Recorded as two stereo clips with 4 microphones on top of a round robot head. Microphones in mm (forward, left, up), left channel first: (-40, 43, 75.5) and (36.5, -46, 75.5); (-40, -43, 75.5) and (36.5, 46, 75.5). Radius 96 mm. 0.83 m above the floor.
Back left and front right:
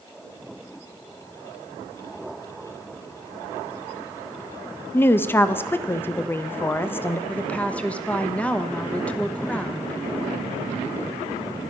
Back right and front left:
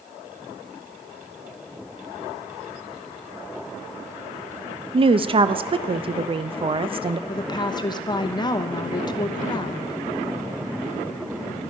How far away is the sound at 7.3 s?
About 1.0 m.